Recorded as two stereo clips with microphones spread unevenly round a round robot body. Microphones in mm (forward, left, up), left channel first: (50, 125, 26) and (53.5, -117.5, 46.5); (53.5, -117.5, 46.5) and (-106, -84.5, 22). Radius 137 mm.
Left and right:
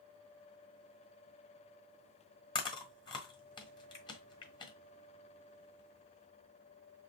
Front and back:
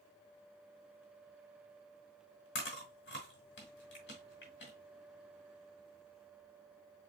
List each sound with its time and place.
2.5 s chewing: 20° left, 1.4 m